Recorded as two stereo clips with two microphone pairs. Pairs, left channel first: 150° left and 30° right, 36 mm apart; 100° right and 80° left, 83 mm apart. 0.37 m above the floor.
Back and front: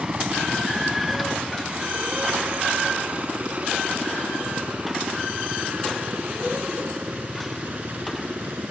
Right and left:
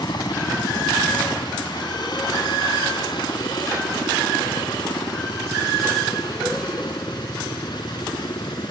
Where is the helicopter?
85° right; by 8.7 s 70° right.